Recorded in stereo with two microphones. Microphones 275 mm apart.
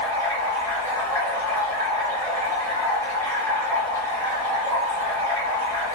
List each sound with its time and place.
0.0 s running water: 10° left (ahead or behind), 1.4 m